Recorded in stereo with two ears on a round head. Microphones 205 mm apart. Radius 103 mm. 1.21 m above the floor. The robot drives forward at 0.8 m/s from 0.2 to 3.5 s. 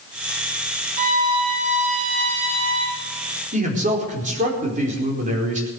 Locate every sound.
1.0 s a violin: 40° right (ahead or behind), 3 m; by 3.0 s 25° right (ahead or behind), 4 m
3.5 s a man speaking: 35° right (ahead or behind), 4.5 m